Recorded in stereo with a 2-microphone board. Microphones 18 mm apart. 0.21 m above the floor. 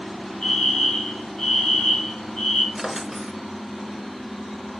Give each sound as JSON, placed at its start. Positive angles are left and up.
{"t": 0.4, "sound": "a fire alarm", "side_deg": 60, "distance_m": 4.5}
{"t": 2.8, "sound": "a drawer", "side_deg": -10, "distance_m": 0.9}